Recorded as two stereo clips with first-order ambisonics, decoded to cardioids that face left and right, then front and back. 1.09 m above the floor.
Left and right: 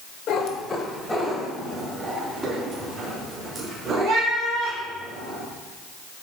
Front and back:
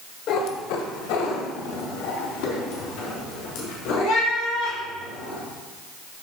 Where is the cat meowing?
45° left, 1.5 m; by 5.4 s 20° right, 8 m.